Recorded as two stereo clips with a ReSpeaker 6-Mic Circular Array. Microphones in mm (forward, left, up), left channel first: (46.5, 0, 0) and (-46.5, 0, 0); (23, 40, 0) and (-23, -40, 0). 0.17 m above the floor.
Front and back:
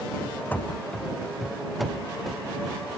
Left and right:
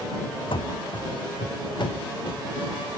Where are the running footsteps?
70° left; by 2.8 s 95° left.